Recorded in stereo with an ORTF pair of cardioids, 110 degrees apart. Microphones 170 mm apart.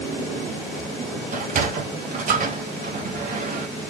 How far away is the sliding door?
About 2.5 m.